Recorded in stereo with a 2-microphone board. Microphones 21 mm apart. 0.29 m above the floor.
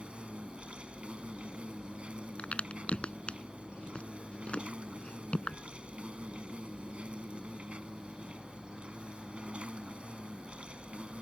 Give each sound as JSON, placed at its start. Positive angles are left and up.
{"t": 0.0, "sound": "an insect", "side_deg": -60}
{"t": 2.4, "sound": "a crack", "side_deg": 60}